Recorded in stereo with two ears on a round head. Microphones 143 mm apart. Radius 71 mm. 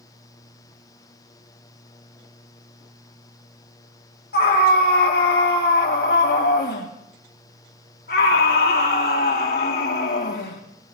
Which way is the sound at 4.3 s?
65° left (ahead or behind).